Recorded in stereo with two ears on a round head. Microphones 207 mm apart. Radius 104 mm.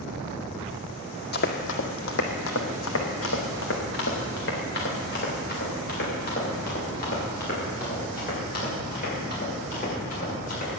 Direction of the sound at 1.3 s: 45° left (ahead or behind).